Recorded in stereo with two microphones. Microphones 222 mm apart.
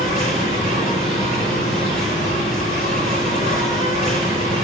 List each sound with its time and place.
0.0 s an insect: 35° left (ahead or behind), 9 m